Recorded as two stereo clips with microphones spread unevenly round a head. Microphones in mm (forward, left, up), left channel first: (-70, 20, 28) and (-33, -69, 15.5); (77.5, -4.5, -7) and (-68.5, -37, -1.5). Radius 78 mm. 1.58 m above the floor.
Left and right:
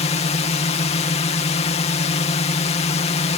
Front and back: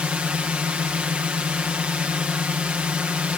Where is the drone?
110° left.